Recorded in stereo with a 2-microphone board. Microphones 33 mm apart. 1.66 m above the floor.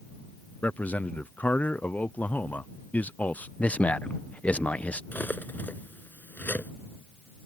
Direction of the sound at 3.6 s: 50° left (ahead or behind).